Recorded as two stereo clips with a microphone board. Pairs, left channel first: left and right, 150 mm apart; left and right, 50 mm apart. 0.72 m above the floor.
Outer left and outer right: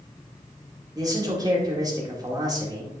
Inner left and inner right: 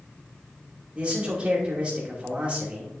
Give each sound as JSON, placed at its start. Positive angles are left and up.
{"t": 0.9, "sound": "a man speaking", "side_deg": -25, "distance_m": 2.0}